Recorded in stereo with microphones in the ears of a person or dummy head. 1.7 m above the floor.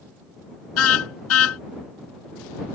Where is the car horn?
75° left (ahead or behind).